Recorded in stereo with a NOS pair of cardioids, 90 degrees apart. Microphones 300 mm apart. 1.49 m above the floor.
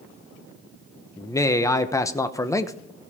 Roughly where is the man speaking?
Ahead.